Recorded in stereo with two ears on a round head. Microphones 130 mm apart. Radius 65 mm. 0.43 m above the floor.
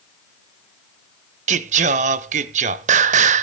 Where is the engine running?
No engine running in this recording.